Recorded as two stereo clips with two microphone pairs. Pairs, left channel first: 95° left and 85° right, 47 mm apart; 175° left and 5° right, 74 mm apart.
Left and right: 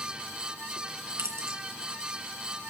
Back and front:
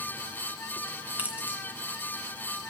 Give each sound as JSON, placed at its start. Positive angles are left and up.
{"t": 1.2, "sound": "keys jangling", "azimuth_deg": -75, "distance_m": 2.0}